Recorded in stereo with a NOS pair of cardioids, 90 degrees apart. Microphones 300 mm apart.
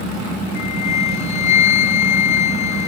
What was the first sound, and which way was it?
A flute, 65° left.